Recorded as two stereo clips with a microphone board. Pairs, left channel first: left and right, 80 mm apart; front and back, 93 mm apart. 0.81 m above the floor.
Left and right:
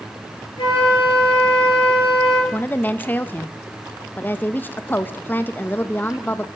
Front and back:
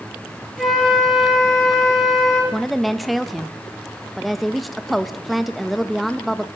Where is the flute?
95° left, 8 m.